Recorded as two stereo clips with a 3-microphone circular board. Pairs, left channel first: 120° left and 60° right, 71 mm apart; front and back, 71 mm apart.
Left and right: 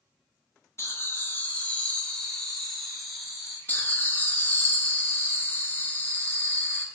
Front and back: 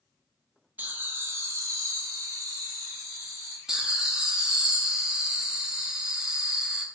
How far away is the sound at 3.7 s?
About 0.7 m.